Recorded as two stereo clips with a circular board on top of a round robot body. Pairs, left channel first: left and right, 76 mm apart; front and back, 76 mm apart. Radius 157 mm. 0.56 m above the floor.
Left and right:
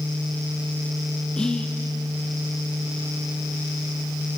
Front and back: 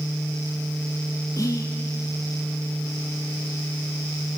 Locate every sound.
1.4 s whispering: 15° left, 1.1 m